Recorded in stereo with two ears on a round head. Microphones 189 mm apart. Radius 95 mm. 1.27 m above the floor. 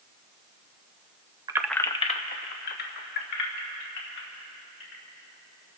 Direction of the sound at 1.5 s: 20° right (ahead or behind).